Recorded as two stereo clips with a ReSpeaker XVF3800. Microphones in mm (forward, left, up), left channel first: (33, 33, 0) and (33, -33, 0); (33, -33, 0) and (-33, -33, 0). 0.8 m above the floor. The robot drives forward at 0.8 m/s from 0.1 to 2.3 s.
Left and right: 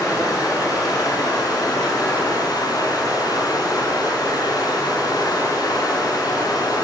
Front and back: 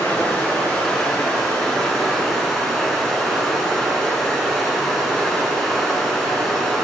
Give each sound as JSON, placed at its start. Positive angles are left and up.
{"t": 0.0, "sound": "running water", "azimuth_deg": 65, "distance_m": 5.5}